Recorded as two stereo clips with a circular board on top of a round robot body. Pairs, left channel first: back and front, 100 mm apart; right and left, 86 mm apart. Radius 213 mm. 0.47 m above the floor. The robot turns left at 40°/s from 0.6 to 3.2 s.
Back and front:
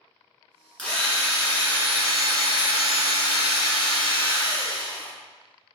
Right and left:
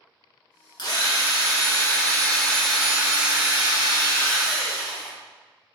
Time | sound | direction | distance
0.8 | a drill | 105° right | 1.7 m